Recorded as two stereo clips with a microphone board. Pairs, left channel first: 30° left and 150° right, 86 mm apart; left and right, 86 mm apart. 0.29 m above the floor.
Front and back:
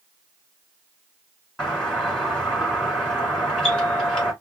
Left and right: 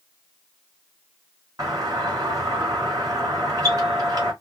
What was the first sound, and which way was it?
A doorbell, 50° right.